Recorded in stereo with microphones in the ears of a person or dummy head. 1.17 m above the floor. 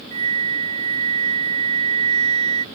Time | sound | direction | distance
0.1 | a flute | 25° right (ahead or behind) | ?